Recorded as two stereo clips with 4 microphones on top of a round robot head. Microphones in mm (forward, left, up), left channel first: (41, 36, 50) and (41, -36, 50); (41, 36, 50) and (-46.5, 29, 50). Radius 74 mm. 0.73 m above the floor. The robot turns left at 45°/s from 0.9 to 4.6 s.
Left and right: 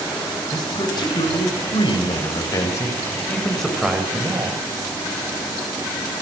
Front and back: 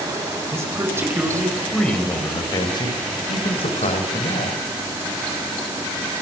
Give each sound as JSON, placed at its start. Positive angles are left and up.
{"t": 0.5, "sound": "a man speaking", "azimuth_deg": 125, "distance_m": 4.5}